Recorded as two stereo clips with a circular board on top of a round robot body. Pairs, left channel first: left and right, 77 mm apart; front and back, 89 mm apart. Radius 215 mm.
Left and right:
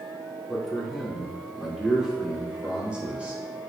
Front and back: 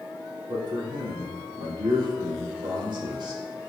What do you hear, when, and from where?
0.5 s a man speaking: 175° left, 2.5 m; by 3.7 s 160° right, 3.5 m